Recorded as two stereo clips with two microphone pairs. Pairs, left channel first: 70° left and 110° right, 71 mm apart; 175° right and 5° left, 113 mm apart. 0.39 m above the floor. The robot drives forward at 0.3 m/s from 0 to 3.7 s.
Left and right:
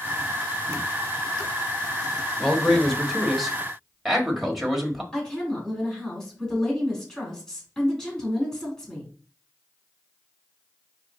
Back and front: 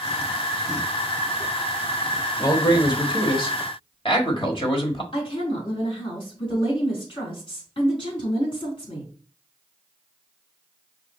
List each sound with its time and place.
2.4 s a man speaking: 150° left, 1.1 m; by 5.0 s 160° left, 1.3 m
5.1 s a woman speaking: 150° left, 3.5 m